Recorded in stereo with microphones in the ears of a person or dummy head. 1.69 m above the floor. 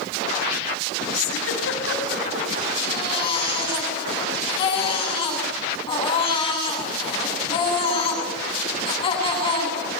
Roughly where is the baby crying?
Left.